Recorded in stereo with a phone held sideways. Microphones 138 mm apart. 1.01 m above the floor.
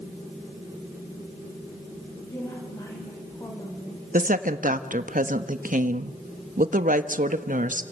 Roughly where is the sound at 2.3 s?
Left.